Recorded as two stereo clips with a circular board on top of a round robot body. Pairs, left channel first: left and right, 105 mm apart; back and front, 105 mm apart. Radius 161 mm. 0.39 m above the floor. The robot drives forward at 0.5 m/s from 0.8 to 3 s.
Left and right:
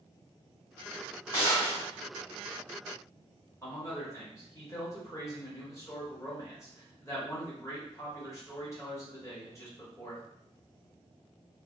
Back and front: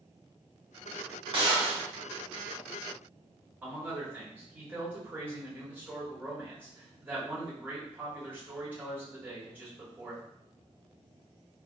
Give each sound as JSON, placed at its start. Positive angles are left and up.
{"t": 1.3, "sound": "a gunshot", "azimuth_deg": 40, "distance_m": 1.7}
{"t": 3.6, "sound": "a man speaking", "azimuth_deg": 60, "distance_m": 1.4}